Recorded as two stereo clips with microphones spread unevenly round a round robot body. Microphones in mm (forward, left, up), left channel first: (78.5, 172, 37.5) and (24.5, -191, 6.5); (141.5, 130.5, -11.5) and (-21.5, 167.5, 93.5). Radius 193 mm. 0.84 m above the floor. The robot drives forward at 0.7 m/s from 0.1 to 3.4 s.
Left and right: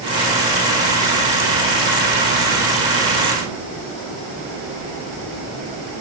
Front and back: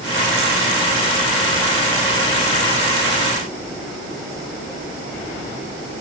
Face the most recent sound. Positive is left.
No sound to turn to.